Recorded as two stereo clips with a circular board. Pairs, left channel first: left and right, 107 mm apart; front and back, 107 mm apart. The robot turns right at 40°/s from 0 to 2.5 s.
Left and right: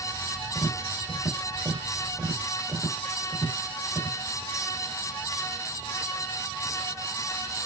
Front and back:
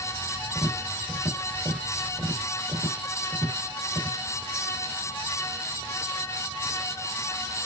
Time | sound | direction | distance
0.6 | tapping | 115° left | 2.0 m